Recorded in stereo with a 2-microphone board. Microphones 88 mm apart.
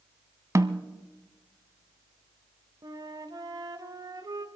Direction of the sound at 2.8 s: 50° right (ahead or behind).